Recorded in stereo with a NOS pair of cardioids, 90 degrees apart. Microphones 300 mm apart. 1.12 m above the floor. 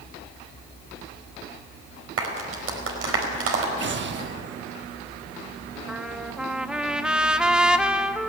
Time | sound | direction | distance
2.2 | a clap | 50° right | 4.5 m
3.8 | an explosion | 40° right | 1.2 m
5.9 | a trumpet | 5° right | 0.9 m